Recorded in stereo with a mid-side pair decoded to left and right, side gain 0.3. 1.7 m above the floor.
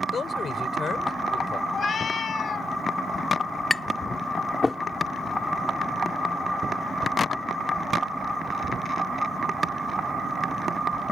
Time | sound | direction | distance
0.1 | a man speaking | 65° left | ?
1.7 | a cat meowing | 70° left | ?
3.7 | tapping | 30° left | ?